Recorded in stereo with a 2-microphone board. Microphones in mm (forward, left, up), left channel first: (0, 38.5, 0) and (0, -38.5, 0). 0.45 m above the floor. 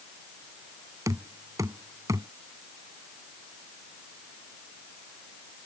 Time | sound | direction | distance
1.1 | knocking | 45° right (ahead or behind) | ?